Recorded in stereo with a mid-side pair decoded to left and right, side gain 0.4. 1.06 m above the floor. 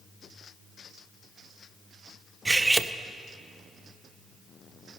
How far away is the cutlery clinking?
About 0.5 m.